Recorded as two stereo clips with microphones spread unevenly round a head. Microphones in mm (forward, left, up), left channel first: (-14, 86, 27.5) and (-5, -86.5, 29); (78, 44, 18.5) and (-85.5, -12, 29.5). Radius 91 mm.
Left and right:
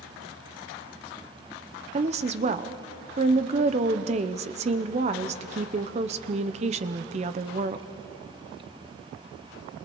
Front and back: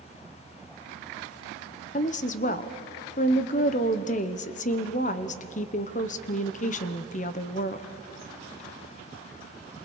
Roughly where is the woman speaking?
Ahead right.